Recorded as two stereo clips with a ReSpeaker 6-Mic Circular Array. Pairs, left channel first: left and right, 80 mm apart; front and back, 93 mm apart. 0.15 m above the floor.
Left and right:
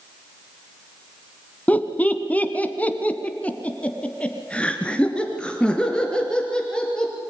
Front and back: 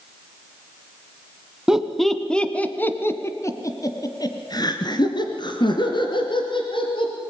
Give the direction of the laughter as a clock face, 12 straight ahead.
8 o'clock.